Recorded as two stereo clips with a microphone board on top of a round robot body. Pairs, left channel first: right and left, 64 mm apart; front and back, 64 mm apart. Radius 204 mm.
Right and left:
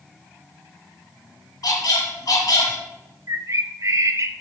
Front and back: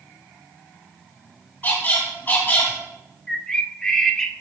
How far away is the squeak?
About 2 m.